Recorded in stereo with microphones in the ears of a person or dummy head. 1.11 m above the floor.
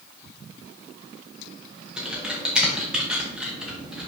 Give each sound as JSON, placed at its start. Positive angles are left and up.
{"t": 2.0, "sound": "typing on a keyboard", "side_deg": -5, "distance_m": 1.3}